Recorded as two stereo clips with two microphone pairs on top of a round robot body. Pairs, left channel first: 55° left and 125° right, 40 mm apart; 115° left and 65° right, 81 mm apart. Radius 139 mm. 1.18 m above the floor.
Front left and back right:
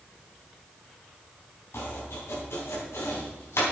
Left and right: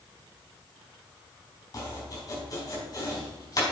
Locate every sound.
1.7 s chopping: 70° left, 4 m